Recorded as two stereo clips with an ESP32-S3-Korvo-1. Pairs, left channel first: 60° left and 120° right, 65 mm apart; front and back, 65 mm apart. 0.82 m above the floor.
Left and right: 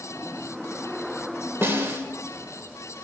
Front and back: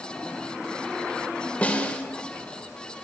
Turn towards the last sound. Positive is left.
turn(degrees=-70)